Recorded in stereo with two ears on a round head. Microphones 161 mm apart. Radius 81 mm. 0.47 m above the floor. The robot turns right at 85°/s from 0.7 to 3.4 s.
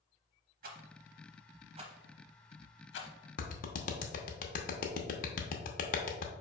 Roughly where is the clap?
Left.